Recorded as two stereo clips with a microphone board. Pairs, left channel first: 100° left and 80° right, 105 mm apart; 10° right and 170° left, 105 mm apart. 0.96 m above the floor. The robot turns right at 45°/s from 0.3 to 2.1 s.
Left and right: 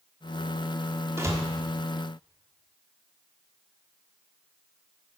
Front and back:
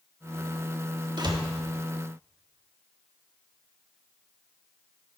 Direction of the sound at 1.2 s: 145° right.